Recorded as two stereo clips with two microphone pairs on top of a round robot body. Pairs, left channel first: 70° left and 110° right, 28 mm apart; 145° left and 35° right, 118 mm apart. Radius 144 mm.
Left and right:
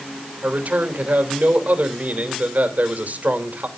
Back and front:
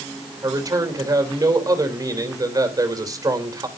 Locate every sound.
0.4 s a man speaking: 95° right, 3 m